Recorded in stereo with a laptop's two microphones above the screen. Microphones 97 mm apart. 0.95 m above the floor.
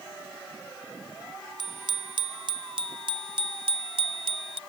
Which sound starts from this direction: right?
A bicycle bell, at 1.6 s.